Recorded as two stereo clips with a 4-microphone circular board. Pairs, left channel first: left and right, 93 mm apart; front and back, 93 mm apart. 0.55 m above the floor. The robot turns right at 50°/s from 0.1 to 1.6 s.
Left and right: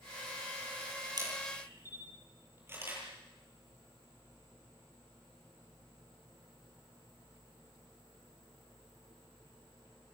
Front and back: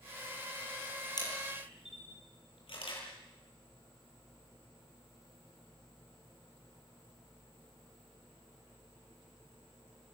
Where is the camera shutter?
45° right, 9.5 m; by 3.0 s 25° right, 9.5 m.